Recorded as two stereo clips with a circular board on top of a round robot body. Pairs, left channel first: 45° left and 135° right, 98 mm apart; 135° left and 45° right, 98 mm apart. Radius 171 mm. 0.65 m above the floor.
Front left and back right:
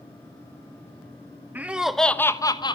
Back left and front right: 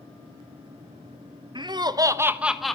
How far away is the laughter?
About 1.6 m.